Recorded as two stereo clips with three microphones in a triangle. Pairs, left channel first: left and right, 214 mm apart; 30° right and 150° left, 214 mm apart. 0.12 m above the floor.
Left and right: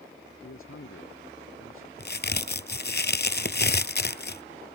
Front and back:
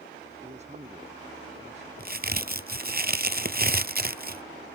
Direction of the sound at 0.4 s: 90° left.